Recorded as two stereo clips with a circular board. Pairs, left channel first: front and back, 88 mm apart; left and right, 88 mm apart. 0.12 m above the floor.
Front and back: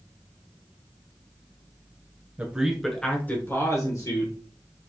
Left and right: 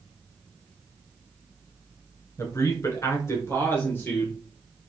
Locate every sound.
2.4 s a man speaking: 115° left, 1.5 m; by 4.4 s 25° left, 2 m